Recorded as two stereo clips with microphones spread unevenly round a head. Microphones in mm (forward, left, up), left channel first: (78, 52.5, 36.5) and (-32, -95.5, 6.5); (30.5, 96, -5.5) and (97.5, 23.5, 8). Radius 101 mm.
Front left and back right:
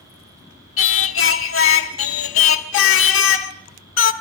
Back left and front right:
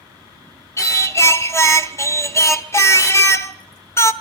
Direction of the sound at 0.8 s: 70° left.